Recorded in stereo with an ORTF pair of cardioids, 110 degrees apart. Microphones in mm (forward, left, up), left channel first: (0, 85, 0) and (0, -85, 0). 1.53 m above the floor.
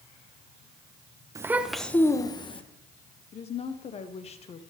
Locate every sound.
1.4 s a child speaking: 20° right, 0.9 m; by 2.6 s 35° left, 1.3 m
3.3 s a woman speaking: 40° left, 1.0 m